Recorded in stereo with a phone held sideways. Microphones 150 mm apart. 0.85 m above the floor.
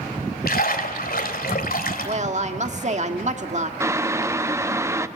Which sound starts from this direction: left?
A splash, at 0.5 s.